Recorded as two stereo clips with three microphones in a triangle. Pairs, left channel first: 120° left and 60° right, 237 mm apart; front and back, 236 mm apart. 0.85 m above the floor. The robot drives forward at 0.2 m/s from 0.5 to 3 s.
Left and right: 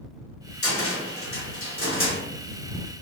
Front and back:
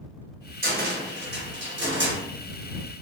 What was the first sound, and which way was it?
A cupboard door, 135° left.